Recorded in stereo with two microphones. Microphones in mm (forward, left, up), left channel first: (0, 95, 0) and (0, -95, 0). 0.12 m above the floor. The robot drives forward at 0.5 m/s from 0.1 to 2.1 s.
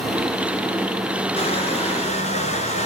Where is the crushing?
30° left (ahead or behind), 2 m; by 2.9 s 35° left (ahead or behind), 2.0 m.